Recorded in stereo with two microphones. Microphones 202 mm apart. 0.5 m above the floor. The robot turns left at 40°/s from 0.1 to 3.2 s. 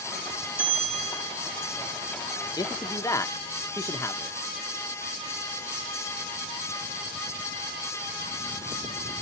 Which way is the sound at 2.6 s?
20° left (ahead or behind).